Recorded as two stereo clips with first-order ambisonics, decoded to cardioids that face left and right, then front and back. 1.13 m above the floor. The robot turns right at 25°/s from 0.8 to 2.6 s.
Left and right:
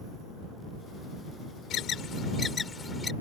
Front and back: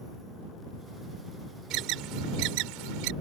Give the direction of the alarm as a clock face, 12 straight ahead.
7 o'clock.